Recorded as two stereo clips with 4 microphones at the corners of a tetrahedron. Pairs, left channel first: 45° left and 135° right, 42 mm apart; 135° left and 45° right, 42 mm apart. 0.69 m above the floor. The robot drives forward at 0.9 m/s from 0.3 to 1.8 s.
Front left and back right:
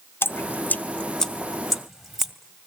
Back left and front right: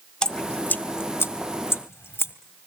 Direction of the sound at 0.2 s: 65° left.